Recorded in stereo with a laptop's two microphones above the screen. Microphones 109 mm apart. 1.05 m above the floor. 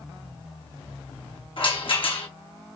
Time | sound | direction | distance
1.6 | a rattle | 55° left (ahead or behind) | 1.5 m